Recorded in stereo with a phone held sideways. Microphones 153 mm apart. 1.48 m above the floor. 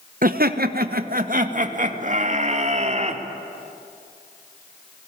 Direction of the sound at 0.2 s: 65° right (ahead or behind).